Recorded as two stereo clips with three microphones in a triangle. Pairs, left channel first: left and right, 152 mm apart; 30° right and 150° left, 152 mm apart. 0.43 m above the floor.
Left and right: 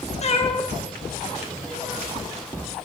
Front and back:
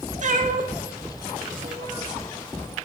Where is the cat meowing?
125° left, 0.7 m; by 2.1 s 150° right, 1.1 m.